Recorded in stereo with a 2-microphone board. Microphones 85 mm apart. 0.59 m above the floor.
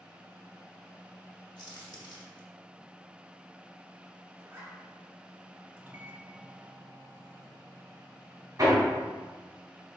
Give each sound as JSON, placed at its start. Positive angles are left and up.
{"t": 1.6, "sound": "a crack", "side_deg": 60, "distance_m": 1.1}
{"t": 4.4, "sound": "a zipper", "side_deg": -30, "distance_m": 1.4}
{"t": 5.8, "sound": "a microwave", "side_deg": -30, "distance_m": 0.6}
{"t": 8.6, "sound": "hammering", "side_deg": -50, "distance_m": 2.0}